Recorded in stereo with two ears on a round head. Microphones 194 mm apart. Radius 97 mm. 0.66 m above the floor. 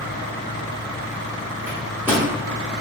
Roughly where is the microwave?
Centre.